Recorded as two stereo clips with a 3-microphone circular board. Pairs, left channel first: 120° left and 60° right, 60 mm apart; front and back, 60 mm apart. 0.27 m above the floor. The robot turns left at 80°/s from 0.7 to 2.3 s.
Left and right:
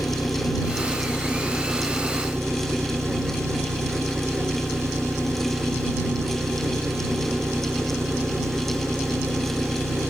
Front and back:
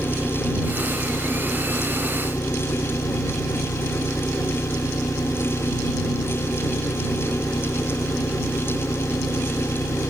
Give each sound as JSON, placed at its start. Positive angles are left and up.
{"t": 0.0, "sound": "an engine running", "azimuth_deg": 115}